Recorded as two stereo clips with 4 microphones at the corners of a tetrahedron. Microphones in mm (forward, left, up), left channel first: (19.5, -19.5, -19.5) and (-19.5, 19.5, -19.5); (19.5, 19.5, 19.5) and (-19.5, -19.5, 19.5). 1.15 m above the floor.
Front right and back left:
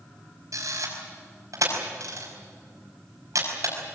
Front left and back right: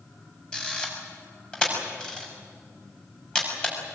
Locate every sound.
0.5 s a camera shutter: 115° left, 5.5 m